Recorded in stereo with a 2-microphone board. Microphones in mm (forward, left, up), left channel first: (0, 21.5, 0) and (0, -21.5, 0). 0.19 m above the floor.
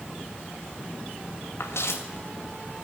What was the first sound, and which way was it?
Footsteps, 75° left (ahead or behind).